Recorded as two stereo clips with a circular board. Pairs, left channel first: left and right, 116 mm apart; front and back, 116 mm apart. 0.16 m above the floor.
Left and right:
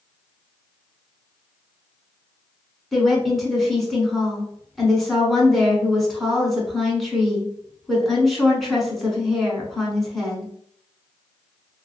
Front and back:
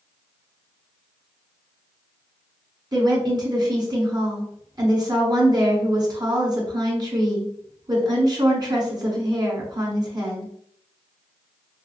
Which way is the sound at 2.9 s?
Straight behind.